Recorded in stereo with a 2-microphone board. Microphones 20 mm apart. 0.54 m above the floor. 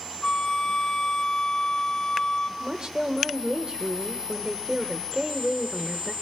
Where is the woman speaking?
45° right (ahead or behind), 1.9 m.